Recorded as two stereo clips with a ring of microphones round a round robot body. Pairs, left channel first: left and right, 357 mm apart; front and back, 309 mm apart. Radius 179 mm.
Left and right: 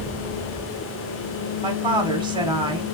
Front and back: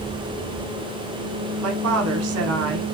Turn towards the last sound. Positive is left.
turn(degrees=-165)